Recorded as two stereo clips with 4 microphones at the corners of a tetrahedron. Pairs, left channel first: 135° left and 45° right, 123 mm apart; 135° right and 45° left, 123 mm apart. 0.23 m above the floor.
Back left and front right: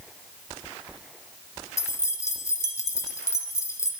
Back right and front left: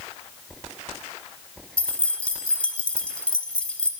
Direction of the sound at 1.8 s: 155° left.